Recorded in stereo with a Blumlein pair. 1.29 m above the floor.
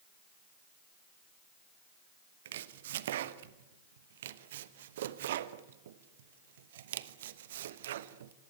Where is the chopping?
60° right, 1.0 m.